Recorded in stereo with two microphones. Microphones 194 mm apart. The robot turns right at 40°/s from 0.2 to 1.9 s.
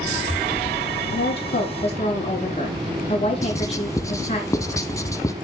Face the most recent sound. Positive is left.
turn(degrees=15)  # may be behind; listen again after turning